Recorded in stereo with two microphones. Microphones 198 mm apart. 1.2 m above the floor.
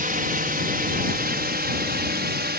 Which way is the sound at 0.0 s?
45° right (ahead or behind).